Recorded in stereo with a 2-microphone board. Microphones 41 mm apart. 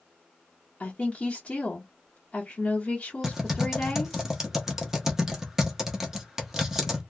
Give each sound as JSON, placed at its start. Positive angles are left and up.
{"t": 0.8, "sound": "a woman speaking", "side_deg": 30, "distance_m": 1.2}
{"t": 3.2, "sound": "typing on a keyboard", "side_deg": -10, "distance_m": 0.9}